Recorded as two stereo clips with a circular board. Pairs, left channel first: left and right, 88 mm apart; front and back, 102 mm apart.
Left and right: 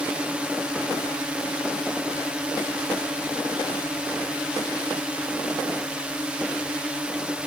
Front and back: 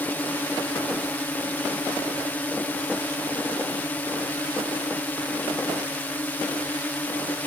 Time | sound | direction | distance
0.0 | a drone | 35° right | ?